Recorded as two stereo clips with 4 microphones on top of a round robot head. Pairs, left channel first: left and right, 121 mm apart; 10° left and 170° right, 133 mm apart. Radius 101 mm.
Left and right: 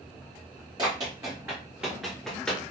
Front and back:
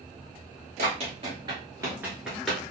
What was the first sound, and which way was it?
Running footsteps, 150° right.